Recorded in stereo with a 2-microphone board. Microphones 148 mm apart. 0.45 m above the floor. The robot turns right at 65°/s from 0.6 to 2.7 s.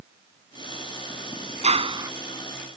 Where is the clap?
50° right; by 2.1 s 20° right.